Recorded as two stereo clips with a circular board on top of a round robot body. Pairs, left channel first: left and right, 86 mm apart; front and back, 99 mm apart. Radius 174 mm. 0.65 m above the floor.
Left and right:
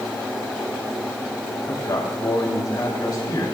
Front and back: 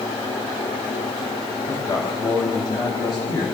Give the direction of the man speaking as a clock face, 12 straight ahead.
10 o'clock.